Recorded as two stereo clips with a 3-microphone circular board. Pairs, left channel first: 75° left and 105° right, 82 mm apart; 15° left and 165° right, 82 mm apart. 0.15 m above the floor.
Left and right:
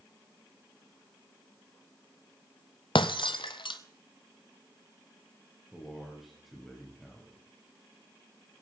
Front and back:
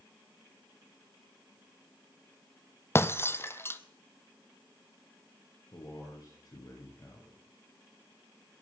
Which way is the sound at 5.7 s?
15° right.